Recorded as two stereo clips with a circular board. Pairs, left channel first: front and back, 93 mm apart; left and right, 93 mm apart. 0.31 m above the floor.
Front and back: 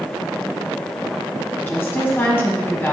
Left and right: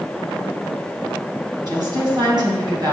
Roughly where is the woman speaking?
Ahead right.